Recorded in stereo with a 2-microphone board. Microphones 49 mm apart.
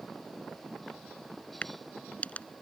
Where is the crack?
35° left (ahead or behind).